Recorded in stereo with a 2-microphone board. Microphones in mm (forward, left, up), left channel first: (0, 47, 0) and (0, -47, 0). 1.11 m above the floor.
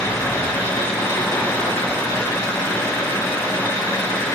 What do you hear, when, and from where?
0.0 s an engine running: 35° left (ahead or behind), 4.5 m